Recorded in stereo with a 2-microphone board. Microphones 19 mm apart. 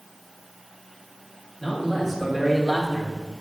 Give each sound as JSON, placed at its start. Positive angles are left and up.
{"t": 1.6, "sound": "a man speaking", "side_deg": 5, "distance_m": 2.0}